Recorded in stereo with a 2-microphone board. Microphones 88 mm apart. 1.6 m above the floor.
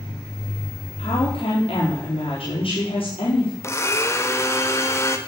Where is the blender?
30° left (ahead or behind), 1.4 m.